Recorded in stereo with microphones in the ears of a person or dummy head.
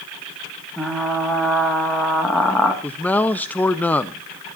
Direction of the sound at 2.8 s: 10° left (ahead or behind).